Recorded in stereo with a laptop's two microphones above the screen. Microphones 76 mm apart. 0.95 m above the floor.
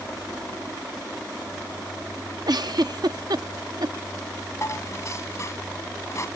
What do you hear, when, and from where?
2.5 s a giggle: 60° right (ahead or behind)
4.6 s dishes clattering: 40° left (ahead or behind)